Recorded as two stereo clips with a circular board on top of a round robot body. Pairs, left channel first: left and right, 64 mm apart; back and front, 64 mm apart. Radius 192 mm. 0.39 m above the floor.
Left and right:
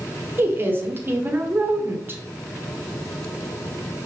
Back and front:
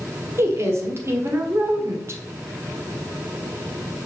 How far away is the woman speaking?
About 1.7 m.